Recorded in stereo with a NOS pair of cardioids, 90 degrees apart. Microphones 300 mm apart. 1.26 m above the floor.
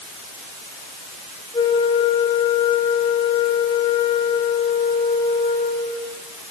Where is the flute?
15° left, 6.5 m.